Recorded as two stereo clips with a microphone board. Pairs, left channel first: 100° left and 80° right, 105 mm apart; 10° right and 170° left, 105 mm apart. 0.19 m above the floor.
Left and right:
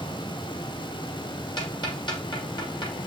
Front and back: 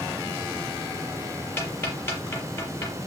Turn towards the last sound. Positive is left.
turn(degrees=55)